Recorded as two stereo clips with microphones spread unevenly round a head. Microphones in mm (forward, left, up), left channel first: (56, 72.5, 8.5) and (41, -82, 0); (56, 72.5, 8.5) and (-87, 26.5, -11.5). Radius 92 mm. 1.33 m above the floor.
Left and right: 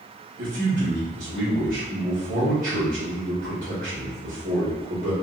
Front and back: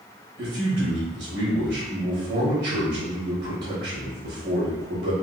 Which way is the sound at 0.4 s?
145° right.